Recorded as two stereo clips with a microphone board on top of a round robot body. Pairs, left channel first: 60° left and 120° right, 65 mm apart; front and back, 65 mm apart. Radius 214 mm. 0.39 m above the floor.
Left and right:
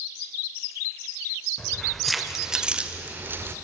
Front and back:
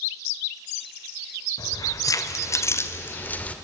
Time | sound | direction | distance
1.6 | keys jangling | 20° right | 1.5 m